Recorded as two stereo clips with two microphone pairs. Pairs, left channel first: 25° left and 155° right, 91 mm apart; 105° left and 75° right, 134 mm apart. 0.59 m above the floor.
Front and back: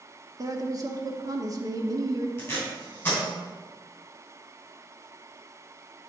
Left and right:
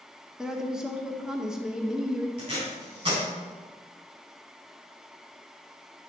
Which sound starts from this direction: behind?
A woman speaking, at 0.4 s.